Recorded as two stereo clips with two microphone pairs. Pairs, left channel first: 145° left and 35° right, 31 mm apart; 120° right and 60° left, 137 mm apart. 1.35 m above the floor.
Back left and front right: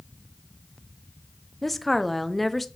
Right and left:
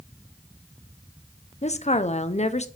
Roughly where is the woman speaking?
Behind right.